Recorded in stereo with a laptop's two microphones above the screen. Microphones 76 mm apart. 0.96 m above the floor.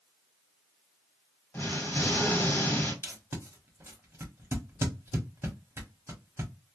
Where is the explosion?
30° left (ahead or behind), 1.1 m.